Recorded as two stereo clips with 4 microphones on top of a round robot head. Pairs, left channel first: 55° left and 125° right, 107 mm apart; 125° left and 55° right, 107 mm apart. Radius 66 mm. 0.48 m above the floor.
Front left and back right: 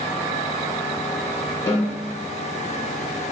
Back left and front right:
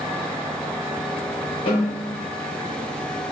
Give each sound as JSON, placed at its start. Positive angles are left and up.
{"t": 1.7, "sound": "a snare drum", "azimuth_deg": 115, "distance_m": 1.4}